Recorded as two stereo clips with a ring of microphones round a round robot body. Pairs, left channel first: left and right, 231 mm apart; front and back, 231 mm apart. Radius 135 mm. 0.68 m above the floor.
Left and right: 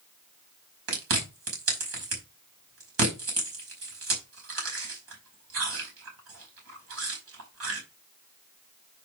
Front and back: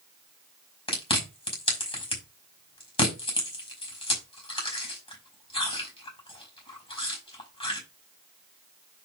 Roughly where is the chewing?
Ahead right.